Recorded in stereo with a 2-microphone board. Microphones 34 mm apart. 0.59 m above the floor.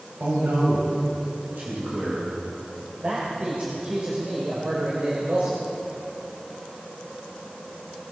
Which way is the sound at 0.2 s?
70° right (ahead or behind).